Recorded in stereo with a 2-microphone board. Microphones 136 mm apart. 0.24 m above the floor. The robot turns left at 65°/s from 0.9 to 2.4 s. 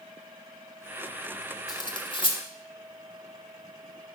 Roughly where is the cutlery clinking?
Left.